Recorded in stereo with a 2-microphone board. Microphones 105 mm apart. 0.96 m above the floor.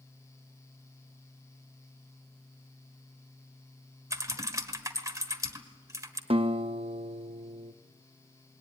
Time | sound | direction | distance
4.1 | typing on a keyboard | 30° right (ahead or behind) | 1.5 m
6.3 | a guitar | 60° right (ahead or behind) | 0.8 m